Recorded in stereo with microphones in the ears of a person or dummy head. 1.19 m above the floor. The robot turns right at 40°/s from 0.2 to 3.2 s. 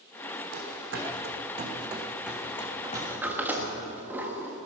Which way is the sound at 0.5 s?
55° right (ahead or behind).